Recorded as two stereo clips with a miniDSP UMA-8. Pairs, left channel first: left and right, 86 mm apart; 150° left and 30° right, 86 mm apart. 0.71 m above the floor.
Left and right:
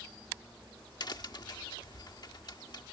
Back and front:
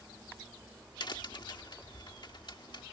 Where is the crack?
125° left.